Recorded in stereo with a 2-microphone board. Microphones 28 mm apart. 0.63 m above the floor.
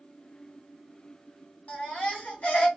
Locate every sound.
1.7 s a baby crying: 60° left (ahead or behind), 1.6 m